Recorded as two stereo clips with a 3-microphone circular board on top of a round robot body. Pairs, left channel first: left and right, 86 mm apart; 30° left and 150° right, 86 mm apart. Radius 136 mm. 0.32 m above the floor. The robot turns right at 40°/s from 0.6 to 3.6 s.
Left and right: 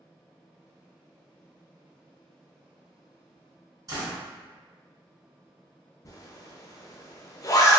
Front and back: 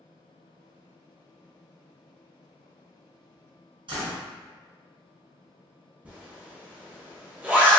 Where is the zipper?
135° left, 0.7 m.